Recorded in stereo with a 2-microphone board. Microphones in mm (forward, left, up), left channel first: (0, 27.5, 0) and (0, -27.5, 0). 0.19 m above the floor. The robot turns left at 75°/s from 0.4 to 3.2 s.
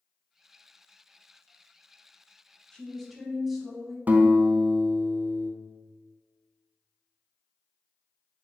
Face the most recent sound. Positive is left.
turn(degrees=-35)  # may be behind; listen again after turning